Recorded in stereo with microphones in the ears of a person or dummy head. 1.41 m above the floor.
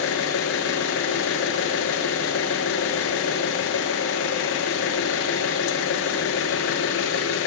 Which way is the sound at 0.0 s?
70° left (ahead or behind).